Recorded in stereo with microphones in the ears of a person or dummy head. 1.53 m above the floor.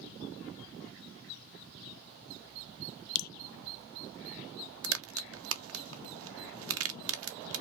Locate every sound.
3.1 s dripping: 50° left (ahead or behind), 0.5 m
4.8 s a crack: 70° right (ahead or behind), 0.6 m